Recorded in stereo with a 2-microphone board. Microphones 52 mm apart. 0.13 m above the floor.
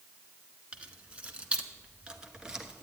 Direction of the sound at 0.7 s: 25° right (ahead or behind).